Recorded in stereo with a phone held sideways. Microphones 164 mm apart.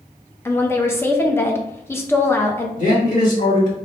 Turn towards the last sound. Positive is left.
turn(degrees=55)  # may be behind; listen again after turning